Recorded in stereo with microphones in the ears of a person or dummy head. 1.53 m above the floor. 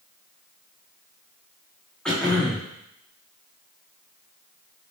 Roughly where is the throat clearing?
Centre.